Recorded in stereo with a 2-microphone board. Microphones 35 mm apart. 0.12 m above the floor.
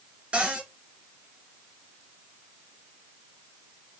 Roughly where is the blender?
No blender in this recording.